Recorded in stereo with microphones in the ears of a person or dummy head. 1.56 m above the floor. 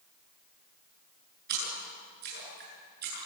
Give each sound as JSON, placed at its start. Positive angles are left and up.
{"t": 1.5, "sound": "a splash", "side_deg": -55, "distance_m": 9.0}